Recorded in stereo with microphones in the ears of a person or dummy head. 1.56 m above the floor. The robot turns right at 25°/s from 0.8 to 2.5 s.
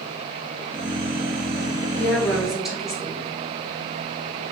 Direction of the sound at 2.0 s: 10° left (ahead or behind).